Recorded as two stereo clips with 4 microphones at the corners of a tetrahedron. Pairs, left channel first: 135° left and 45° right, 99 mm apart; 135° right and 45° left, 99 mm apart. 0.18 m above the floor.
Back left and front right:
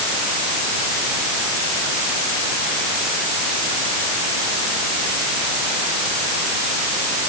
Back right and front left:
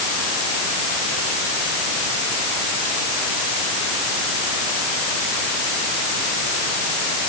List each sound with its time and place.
Only background noise.